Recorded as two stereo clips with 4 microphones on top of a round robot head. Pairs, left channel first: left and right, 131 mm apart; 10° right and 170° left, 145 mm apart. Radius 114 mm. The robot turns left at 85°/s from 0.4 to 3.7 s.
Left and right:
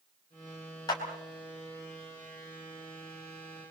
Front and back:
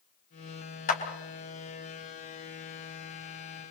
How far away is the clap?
About 4 m.